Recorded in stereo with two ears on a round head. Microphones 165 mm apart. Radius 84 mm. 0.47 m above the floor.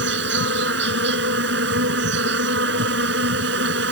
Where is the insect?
65° right (ahead or behind).